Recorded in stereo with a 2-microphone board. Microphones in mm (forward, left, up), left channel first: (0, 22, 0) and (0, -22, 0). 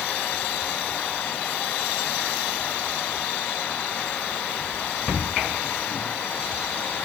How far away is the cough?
No cough in this recording.